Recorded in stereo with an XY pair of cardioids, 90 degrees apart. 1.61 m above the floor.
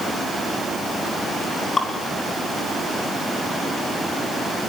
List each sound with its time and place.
1.8 s dripping: 35° left, 5.5 m